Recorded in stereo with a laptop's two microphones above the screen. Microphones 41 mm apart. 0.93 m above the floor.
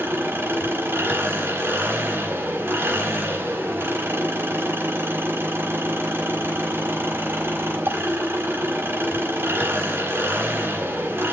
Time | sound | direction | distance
0.0 | an engine running | 70° right (ahead or behind) | 5 m